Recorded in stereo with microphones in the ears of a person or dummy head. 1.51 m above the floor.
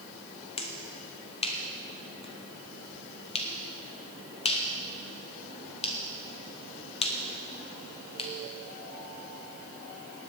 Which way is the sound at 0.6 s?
35° left (ahead or behind).